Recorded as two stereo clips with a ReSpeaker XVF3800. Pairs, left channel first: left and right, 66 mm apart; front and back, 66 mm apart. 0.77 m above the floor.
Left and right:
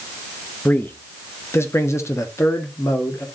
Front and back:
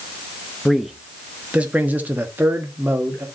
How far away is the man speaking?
About 0.9 m.